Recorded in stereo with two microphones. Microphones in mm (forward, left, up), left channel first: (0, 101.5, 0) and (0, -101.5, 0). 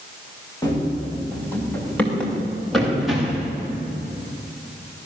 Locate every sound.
0.6 s running footsteps: 15° left (ahead or behind), 6.5 m; by 3.5 s 5° right (ahead or behind), 7.5 m